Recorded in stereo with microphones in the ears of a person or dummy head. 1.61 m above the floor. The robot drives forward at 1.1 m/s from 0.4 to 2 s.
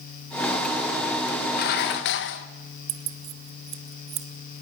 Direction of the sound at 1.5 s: 50° left (ahead or behind).